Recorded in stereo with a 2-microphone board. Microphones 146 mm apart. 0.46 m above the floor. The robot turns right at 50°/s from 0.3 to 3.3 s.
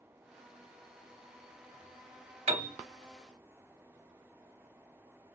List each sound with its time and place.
2.5 s a piano: 45° right (ahead or behind), 0.6 m; by 2.8 s 60° right (ahead or behind), 0.6 m